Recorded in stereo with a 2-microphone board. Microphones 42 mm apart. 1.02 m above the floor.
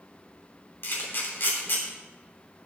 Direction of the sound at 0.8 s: 65° left (ahead or behind).